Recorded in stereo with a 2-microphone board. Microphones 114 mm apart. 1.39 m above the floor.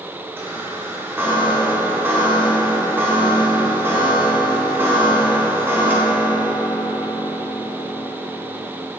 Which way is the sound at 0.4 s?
20° right (ahead or behind).